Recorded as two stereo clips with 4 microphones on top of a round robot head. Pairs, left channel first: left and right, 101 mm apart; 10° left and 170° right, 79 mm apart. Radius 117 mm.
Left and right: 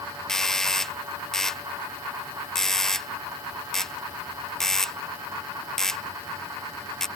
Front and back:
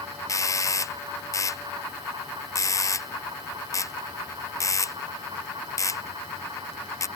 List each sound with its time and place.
0.3 s a doorbell: 5° left